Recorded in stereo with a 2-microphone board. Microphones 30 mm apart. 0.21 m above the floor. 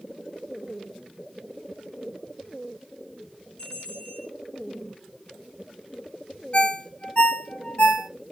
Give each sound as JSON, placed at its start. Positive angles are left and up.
{"t": 3.6, "sound": "a bell", "side_deg": 35, "distance_m": 2.5}
{"t": 6.5, "sound": "a ringtone", "side_deg": 40, "distance_m": 0.8}